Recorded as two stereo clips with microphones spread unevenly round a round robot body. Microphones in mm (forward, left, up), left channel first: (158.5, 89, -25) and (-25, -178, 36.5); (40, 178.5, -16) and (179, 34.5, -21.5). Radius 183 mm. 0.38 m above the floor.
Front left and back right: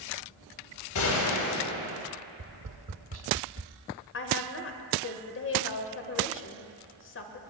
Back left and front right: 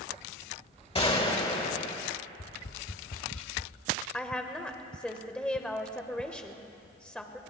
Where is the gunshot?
75° left, 2 m.